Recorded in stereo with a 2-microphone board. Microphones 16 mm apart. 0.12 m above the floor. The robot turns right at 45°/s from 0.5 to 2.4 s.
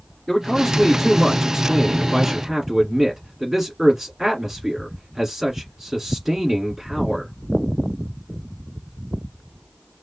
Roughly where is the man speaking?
Behind left.